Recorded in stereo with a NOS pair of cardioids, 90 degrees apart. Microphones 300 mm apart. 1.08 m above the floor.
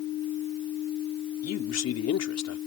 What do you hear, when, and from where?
1.4 s a man speaking: 60° left